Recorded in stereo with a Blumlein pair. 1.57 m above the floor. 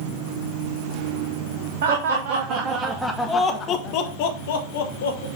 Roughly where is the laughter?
Ahead right.